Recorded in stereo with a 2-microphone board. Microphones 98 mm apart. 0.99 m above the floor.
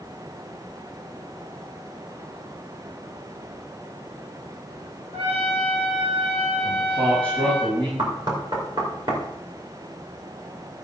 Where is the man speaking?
60° right (ahead or behind), 5.5 m.